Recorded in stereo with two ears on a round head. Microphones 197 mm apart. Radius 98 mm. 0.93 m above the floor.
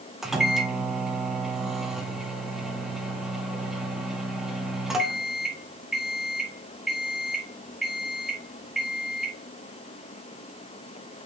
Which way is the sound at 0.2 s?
Centre (ahead or behind).